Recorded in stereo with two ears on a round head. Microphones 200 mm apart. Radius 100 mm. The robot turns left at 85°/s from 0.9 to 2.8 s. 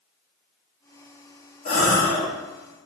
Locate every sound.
1.6 s a gasp: 55° left, 1.1 m; by 2.3 s 5° left, 1.1 m